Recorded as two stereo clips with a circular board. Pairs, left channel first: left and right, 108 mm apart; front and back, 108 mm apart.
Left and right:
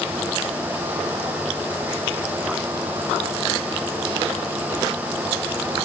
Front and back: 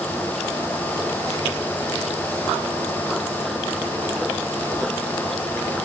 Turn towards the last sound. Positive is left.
No sound to turn to.